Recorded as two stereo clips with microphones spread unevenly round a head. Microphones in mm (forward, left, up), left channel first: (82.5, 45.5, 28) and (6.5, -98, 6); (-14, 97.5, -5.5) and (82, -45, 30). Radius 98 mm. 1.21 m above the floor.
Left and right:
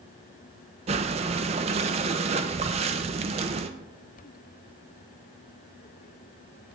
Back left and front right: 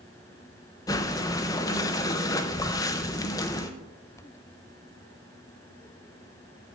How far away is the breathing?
About 0.5 m.